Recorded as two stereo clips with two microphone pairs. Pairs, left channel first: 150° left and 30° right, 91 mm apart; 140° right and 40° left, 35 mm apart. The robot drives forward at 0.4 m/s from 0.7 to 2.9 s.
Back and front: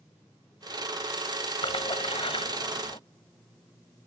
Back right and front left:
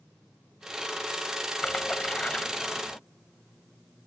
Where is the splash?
160° left.